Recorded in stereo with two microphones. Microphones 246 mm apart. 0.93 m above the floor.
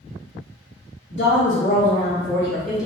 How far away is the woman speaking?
About 0.7 m.